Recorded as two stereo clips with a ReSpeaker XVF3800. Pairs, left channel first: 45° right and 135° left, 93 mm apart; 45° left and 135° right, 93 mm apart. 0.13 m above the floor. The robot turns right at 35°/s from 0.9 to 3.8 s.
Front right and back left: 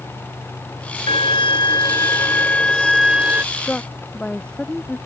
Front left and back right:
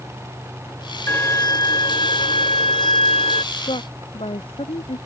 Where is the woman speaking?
25° left; by 5.0 s 35° left.